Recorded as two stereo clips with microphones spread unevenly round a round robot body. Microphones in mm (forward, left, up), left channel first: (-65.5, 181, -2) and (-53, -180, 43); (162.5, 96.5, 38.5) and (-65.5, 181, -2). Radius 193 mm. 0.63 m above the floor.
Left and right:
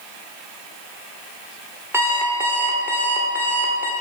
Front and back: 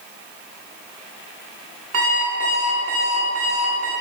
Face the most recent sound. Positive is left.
turn(degrees=-175)